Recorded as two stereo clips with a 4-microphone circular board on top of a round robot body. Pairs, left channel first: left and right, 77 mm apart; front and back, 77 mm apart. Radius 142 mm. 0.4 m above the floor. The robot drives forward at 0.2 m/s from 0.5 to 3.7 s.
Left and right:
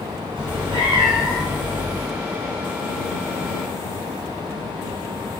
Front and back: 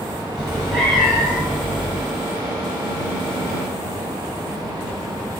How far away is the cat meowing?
About 1.3 m.